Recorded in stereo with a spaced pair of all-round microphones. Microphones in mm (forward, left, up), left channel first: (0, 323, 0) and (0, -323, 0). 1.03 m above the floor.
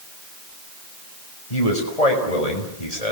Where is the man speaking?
65° left (ahead or behind), 6 m.